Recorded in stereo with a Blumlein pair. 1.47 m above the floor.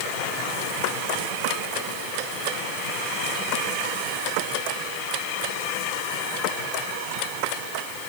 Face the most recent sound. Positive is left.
No sound to turn to.